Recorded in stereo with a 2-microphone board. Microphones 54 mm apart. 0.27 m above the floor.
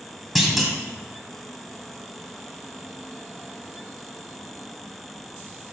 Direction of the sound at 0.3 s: Centre (ahead or behind).